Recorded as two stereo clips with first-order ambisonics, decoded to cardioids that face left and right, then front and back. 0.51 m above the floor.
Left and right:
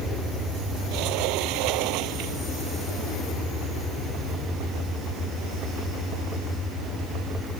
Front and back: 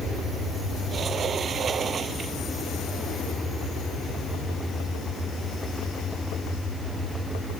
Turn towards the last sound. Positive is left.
turn(degrees=-115)